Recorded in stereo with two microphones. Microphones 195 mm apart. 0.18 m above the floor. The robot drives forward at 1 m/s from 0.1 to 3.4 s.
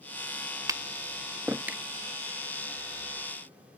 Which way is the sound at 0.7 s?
15° right (ahead or behind).